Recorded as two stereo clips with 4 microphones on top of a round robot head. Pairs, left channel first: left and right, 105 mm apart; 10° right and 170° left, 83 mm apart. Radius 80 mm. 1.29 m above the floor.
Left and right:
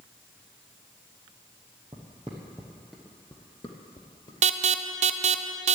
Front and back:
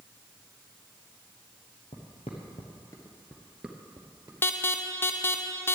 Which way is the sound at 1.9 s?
35° right.